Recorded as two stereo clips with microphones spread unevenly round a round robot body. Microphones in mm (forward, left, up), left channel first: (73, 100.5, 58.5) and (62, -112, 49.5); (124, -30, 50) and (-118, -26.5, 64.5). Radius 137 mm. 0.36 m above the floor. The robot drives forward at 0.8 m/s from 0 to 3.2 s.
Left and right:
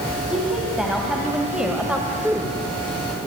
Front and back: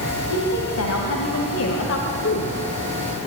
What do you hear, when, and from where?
0.3 s a woman speaking: 5° right, 3.5 m; by 3.2 s 20° right, 1.5 m